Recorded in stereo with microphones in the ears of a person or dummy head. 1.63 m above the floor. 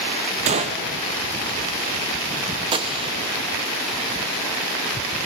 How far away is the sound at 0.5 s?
About 0.6 m.